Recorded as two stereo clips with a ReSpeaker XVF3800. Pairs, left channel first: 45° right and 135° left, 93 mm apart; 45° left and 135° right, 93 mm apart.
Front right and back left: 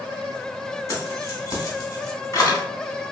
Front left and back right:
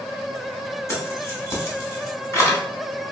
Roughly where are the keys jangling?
Ahead.